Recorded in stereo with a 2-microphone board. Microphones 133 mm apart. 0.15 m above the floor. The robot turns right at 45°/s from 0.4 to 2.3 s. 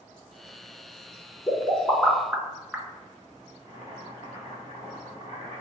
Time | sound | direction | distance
1.5 | a pop | 25° left (ahead or behind) | 0.6 m
3.6 | boiling | 55° left (ahead or behind) | 1.5 m